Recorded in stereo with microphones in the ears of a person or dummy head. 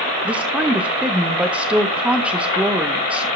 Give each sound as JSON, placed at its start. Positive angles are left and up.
{"t": 0.2, "sound": "a woman speaking", "side_deg": -5, "distance_m": 0.7}